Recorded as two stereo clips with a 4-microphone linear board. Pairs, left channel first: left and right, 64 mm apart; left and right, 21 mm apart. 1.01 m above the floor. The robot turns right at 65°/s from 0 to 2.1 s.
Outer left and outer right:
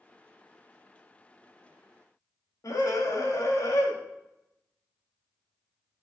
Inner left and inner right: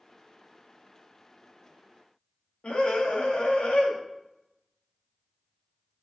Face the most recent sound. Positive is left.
turn(degrees=65)  # may be behind; listen again after turning